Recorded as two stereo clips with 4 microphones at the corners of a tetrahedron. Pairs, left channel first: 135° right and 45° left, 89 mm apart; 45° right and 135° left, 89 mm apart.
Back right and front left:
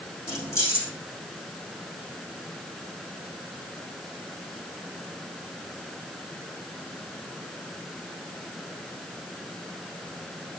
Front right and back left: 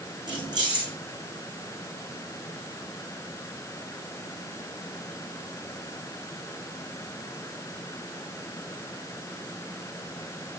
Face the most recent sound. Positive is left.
turn(degrees=170)